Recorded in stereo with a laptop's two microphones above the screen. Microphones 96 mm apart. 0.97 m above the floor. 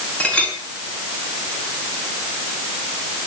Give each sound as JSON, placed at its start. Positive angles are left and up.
{"t": 0.2, "sound": "a clink", "side_deg": 15, "distance_m": 7.5}